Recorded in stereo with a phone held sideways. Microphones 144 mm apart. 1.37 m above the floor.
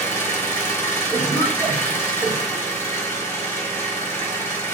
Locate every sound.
0.0 s an engine running: 15° left (ahead or behind), 1.0 m
1.1 s a cough: 15° right (ahead or behind), 1.8 m